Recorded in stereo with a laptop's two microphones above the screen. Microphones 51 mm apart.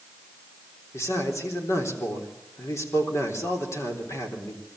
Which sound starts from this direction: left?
A man speaking, at 0.9 s.